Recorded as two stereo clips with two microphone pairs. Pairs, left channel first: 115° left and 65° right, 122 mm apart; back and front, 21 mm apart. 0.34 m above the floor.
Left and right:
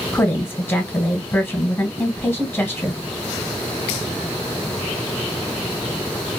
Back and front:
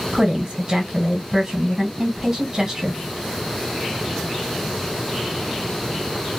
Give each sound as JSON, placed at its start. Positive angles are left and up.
{"t": 0.1, "sound": "a woman speaking", "azimuth_deg": 50, "distance_m": 1.5}